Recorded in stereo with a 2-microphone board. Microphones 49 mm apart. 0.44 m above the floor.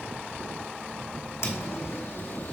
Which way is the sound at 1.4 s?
70° left (ahead or behind).